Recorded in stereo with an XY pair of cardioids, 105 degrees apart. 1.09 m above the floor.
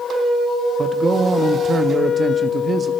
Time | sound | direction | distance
0.8 | a man speaking | 40° right | 1.2 m